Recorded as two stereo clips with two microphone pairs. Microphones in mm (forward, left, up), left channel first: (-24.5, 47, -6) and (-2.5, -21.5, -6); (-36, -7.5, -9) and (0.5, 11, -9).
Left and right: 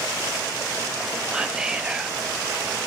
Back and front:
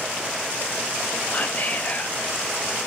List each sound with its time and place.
1.3 s whispering: 150° right, 0.6 m